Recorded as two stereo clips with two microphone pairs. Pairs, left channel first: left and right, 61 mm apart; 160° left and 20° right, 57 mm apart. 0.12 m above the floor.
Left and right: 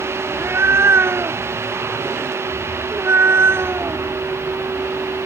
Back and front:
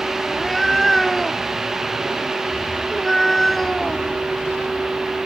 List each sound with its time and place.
0.3 s a cat meowing: 120° right